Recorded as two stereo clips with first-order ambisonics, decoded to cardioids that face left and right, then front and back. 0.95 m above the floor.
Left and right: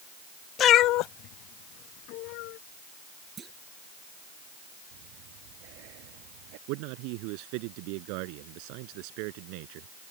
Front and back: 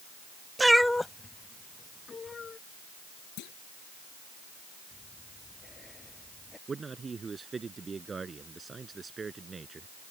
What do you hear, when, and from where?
0.6 s a cat meowing: 105° left; by 2.6 s 70° left
3.4 s a clunk: 25° right
4.9 s breathing: 80° right
6.7 s a man speaking: 105° right